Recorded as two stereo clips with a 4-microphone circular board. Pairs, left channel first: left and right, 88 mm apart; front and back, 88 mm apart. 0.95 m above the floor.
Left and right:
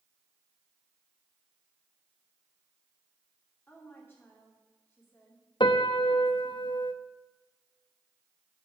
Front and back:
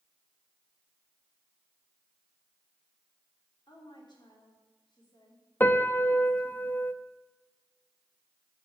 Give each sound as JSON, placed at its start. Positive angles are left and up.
{"t": 3.7, "sound": "a woman speaking", "azimuth_deg": 25, "distance_m": 3.0}
{"t": 5.6, "sound": "a piano", "azimuth_deg": 65, "distance_m": 0.5}